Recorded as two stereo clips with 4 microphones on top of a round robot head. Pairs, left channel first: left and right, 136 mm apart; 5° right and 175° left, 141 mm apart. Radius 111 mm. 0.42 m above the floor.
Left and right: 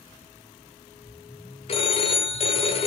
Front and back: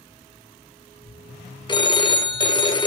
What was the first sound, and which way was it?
A phone ringing, 50° left.